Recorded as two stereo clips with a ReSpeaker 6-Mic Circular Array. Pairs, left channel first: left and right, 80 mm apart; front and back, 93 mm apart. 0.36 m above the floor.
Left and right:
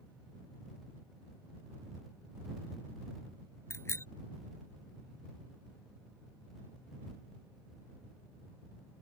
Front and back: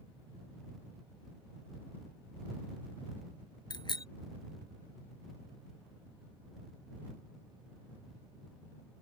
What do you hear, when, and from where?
3.7 s a bicycle bell: 35° left